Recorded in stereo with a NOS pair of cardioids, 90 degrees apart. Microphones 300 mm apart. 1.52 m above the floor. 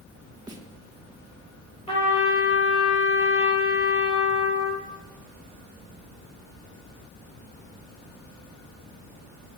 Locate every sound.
0.5 s a snare drum: 15° right, 1.9 m
1.9 s a trumpet: 20° left, 5.5 m